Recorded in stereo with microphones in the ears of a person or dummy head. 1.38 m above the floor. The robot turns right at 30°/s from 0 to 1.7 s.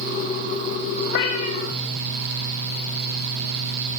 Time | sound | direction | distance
1.1 | a cat meowing | 60° left (ahead or behind) | 2.5 m